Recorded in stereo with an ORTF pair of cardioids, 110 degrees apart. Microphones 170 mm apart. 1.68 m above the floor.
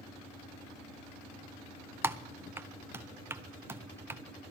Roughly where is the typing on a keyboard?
Ahead.